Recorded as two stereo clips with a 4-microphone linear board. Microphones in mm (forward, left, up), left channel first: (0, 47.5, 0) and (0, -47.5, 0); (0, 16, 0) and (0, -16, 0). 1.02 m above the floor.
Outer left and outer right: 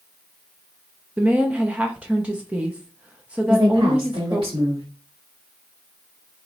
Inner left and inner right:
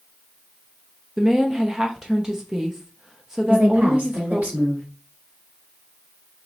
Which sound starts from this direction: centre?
A woman speaking, at 1.2 s.